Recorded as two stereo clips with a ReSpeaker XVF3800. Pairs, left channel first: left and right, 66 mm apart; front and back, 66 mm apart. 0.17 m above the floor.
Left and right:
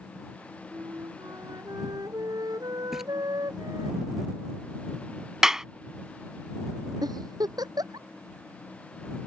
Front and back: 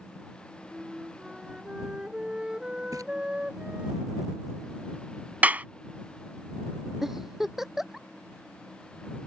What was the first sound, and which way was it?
A flute, 105° right.